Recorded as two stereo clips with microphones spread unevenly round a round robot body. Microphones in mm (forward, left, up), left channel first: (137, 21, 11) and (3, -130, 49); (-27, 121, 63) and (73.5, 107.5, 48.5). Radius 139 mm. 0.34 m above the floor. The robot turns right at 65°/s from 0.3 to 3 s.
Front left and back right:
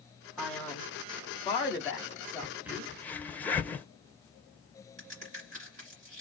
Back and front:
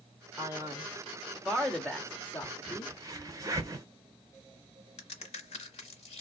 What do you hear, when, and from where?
0.4 s a man speaking: 20° right, 0.9 m; by 2.9 s 145° left, 0.9 m
2.4 s a crack: 55° right, 0.6 m; by 3.9 s 20° right, 0.6 m
5.0 s a crack: 165° left, 1.1 m